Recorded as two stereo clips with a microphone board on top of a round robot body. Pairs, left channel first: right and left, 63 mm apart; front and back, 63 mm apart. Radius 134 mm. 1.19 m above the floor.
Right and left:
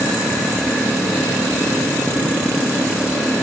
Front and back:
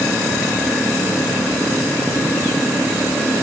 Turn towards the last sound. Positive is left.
No sound to turn to.